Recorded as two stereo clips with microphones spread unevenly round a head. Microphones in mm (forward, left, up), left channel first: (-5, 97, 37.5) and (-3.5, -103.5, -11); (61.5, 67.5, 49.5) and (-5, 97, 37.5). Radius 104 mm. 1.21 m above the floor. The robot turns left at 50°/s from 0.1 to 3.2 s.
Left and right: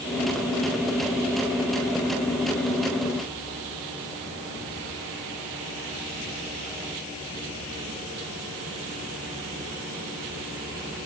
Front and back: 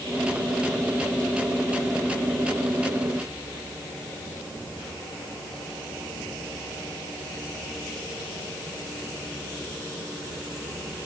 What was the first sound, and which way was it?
Only background noise.